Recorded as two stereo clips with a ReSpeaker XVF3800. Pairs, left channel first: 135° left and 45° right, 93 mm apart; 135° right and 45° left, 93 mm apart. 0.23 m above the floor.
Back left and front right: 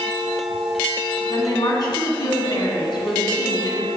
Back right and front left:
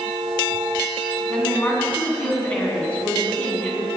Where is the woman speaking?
155° left, 2.0 m.